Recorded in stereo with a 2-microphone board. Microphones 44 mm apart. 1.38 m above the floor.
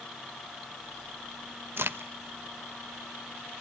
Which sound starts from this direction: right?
A crack, at 1.8 s.